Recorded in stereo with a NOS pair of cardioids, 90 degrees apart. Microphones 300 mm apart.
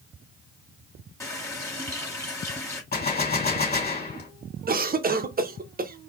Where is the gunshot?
30° left, 2.5 m.